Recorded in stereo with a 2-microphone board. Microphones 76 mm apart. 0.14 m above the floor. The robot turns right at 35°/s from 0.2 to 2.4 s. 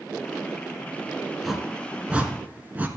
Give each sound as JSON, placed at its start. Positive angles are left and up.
{"t": 1.4, "sound": "a whoosh", "side_deg": 0, "distance_m": 1.7}